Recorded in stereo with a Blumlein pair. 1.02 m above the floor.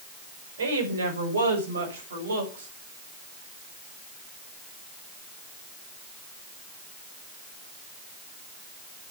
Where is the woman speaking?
70° right, 5 m; by 2.7 s 65° right, 7 m.